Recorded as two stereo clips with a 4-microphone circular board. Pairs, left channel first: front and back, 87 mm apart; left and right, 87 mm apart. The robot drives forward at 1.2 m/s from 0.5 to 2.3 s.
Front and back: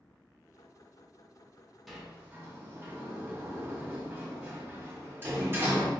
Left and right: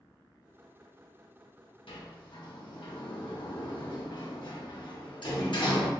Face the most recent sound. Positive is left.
turn(degrees=115)